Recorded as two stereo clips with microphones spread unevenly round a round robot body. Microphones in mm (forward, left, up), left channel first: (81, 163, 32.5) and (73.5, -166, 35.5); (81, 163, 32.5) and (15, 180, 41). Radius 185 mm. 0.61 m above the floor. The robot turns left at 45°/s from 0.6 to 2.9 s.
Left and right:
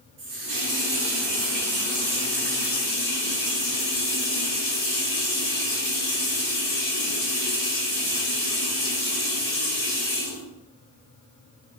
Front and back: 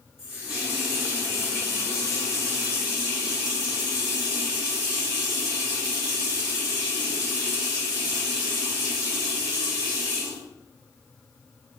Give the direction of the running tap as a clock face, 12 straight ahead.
4 o'clock.